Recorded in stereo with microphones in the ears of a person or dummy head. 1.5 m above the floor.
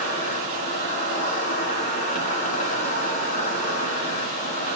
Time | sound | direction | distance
0.0 | an insect | 40° left (ahead or behind) | 6.5 m